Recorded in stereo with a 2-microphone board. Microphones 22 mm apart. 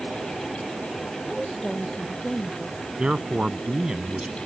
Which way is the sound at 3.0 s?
45° right (ahead or behind).